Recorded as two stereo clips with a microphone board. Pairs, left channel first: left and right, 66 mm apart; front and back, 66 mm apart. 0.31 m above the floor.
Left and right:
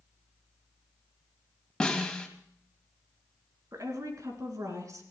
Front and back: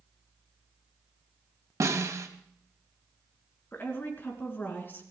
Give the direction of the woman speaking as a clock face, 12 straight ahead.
2 o'clock.